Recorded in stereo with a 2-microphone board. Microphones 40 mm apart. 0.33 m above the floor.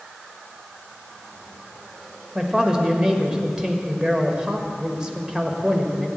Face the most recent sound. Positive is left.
turn(degrees=-20)  # may be behind; listen again after turning